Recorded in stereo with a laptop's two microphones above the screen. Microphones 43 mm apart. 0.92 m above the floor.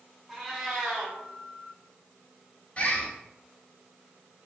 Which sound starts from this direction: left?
A bird, at 2.8 s.